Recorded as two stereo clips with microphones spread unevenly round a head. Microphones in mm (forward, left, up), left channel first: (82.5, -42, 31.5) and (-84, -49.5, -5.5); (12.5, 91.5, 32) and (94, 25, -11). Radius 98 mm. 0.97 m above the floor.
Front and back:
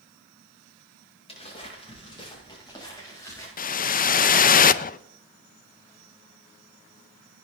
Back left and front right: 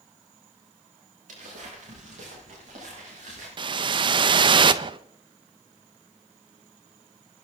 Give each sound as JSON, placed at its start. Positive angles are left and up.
{"t": 1.3, "sound": "footsteps", "azimuth_deg": -55, "distance_m": 9.5}
{"t": 3.6, "sound": "a whoosh", "azimuth_deg": -40, "distance_m": 0.5}